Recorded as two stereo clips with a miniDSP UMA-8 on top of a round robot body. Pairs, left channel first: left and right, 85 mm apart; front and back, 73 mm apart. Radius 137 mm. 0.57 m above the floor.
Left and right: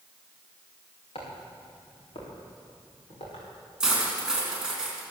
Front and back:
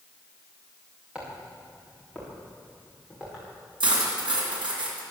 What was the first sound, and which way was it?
Footsteps, 105° left.